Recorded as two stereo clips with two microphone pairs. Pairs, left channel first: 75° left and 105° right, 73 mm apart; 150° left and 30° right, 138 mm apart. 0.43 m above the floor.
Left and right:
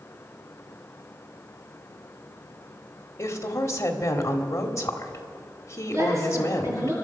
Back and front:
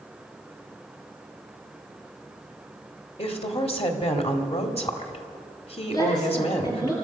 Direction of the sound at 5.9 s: 150° right.